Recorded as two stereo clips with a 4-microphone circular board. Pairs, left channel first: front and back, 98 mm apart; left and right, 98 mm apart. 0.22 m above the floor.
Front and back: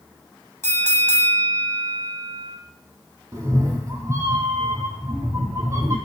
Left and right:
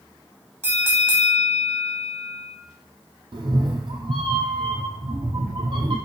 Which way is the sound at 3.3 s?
120° right.